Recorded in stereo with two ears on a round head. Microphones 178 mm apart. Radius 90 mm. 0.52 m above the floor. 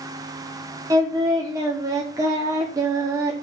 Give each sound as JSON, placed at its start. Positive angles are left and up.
{"t": 0.9, "sound": "singing", "side_deg": -15, "distance_m": 1.0}